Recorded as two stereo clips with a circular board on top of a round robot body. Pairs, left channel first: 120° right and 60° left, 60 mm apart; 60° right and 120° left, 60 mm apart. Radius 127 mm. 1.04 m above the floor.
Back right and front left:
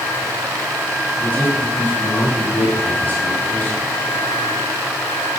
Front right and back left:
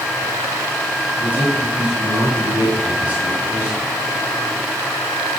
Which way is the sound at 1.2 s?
175° right.